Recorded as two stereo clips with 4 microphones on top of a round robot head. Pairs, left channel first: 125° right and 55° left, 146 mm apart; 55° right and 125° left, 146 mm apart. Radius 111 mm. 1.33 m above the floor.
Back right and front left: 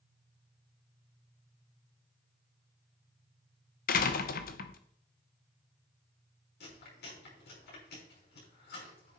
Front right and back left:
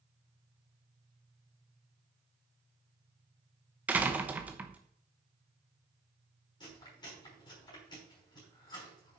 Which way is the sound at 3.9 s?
155° right.